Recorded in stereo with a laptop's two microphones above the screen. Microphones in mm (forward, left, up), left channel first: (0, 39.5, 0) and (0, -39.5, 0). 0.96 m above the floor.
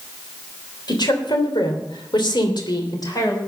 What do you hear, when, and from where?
0.9 s a woman speaking: 65° left (ahead or behind), 3 m; by 3.4 s 45° left (ahead or behind), 3.5 m